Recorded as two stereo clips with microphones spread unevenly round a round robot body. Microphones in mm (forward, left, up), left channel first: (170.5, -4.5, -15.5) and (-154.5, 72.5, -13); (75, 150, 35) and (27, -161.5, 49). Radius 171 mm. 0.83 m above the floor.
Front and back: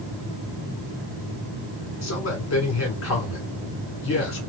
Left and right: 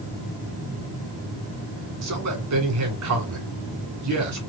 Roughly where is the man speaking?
Ahead right.